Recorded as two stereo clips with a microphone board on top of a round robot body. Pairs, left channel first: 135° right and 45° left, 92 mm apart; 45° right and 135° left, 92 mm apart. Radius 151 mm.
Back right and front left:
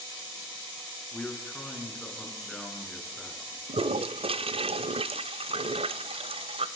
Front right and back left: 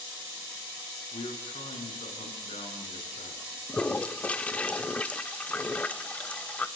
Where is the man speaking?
55° right, 6 m; by 3.6 s 50° right, 7.5 m.